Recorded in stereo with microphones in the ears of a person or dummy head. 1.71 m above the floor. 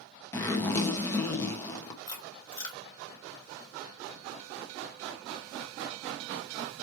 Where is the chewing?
20° left (ahead or behind), 2.5 m.